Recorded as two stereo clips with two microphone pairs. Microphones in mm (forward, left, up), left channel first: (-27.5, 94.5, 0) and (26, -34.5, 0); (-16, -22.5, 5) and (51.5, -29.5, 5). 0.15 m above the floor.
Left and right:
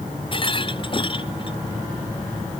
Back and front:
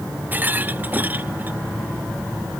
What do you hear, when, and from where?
0.3 s a rattle: 60° left